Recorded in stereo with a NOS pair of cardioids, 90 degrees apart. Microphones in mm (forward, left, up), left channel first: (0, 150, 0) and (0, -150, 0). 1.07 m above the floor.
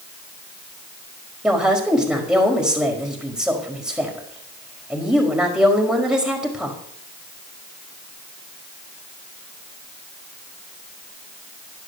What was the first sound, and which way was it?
A woman speaking, straight ahead.